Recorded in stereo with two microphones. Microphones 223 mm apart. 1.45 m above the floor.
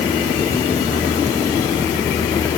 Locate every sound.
Only background noise.